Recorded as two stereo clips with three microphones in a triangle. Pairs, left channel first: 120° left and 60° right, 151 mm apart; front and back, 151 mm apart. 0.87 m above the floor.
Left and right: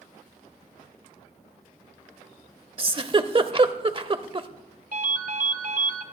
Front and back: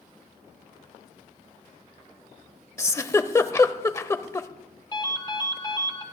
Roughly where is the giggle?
Ahead right.